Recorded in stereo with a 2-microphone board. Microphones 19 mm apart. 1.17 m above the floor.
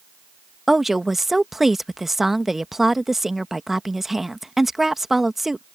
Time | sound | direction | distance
0.7 | a woman speaking | 15° right (ahead or behind) | ?